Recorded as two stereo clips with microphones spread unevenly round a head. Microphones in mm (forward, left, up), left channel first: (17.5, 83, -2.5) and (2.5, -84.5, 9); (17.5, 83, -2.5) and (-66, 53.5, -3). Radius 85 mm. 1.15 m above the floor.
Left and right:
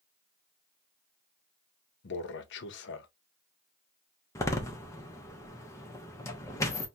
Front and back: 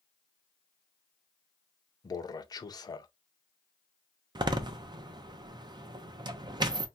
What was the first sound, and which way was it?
A man speaking, 65° left.